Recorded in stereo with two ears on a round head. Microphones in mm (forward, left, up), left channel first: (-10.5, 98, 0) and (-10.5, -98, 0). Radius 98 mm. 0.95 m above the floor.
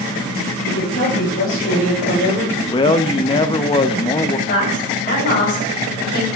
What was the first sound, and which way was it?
A woman speaking, 55° left (ahead or behind).